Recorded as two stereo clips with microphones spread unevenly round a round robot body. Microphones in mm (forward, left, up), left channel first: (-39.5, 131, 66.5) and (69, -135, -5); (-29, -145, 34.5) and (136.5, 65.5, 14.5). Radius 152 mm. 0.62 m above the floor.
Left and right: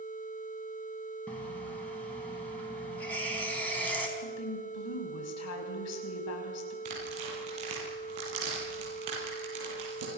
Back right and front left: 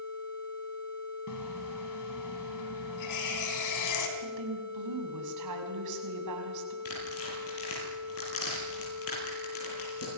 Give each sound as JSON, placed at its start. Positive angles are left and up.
{"t": 1.3, "sound": "a running tap", "azimuth_deg": -160, "distance_m": 3.5}
{"t": 4.2, "sound": "a woman speaking", "azimuth_deg": 75, "distance_m": 6.0}
{"t": 6.8, "sound": "tearing paper", "azimuth_deg": -95, "distance_m": 9.5}